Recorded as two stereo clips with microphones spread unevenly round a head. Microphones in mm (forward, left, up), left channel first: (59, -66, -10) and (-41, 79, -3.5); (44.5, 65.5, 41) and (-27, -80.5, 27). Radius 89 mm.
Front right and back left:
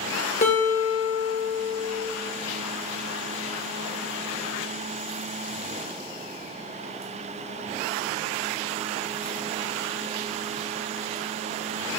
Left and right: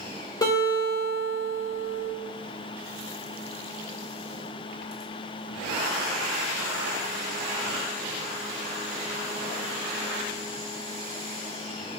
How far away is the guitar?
About 2 m.